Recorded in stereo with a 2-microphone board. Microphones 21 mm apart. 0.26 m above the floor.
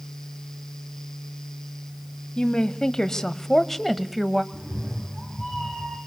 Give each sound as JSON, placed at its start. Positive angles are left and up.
{"t": 2.4, "sound": "a woman speaking", "side_deg": 40, "distance_m": 1.3}
{"t": 4.5, "sound": "a cat meowing", "side_deg": -20, "distance_m": 6.0}